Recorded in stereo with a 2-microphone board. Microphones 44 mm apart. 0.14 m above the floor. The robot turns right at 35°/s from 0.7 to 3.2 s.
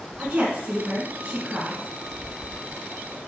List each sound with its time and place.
0.2 s a woman speaking: 25° right (ahead or behind), 1.6 m; by 1.9 s 15° right (ahead or behind), 1.6 m